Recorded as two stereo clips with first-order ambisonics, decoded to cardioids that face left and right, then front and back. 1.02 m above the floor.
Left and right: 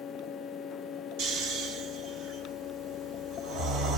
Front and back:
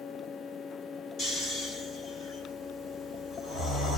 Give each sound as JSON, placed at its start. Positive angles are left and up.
{"t": 1.2, "sound": "snoring", "azimuth_deg": -60, "distance_m": 2.5}